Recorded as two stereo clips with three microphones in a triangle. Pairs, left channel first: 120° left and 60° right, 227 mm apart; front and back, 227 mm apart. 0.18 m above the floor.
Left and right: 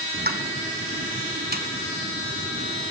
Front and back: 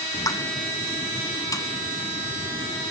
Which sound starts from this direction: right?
A pop, at 0.1 s.